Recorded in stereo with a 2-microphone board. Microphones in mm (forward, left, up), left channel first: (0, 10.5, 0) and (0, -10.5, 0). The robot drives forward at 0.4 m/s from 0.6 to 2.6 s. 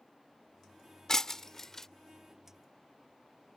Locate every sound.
1.1 s breaking glass: 20° left (ahead or behind); by 1.9 s 15° left (ahead or behind)